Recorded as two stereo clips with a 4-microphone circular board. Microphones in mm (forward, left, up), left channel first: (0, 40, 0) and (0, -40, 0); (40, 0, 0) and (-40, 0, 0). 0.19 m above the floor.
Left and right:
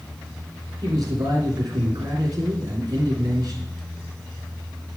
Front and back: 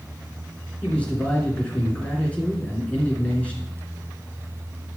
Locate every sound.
0.8 s a man speaking: 70° right, 2.5 m